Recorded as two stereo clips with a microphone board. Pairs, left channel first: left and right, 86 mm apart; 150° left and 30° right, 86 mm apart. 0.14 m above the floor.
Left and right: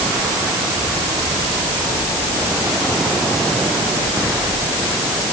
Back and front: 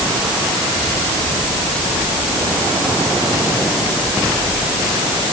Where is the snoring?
I don't hear snoring.